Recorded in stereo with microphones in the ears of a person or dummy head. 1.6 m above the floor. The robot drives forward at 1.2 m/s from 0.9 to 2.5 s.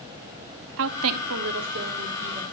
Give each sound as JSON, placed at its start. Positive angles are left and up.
{"t": 0.8, "sound": "a woman speaking", "side_deg": -75, "distance_m": 0.9}